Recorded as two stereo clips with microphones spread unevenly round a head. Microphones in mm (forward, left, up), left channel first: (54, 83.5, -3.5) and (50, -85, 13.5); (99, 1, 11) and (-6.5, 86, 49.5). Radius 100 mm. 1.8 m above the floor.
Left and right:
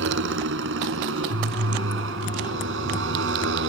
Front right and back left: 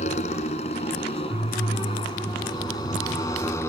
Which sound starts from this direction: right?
A motorcycle, at 0.0 s.